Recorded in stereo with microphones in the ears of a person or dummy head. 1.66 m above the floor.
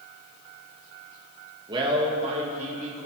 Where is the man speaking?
30° right (ahead or behind), 2 m; by 3.1 s 45° right (ahead or behind), 2.5 m.